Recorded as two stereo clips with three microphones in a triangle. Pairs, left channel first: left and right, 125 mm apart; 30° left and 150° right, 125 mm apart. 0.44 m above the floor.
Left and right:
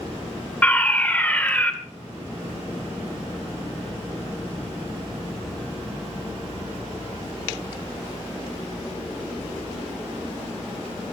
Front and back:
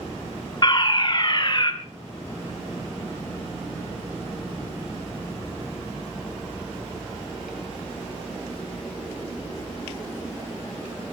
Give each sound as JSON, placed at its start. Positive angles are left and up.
{"t": 0.6, "sound": "a fire alarm", "azimuth_deg": 20, "distance_m": 2.5}